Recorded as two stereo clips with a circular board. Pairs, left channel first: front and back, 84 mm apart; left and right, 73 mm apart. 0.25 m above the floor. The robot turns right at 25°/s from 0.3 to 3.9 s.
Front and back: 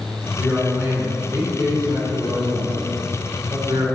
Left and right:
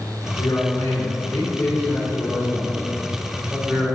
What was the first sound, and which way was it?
A man speaking, 120° left.